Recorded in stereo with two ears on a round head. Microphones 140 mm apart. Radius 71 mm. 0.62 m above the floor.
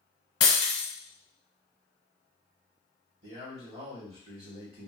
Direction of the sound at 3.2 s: 45° right (ahead or behind).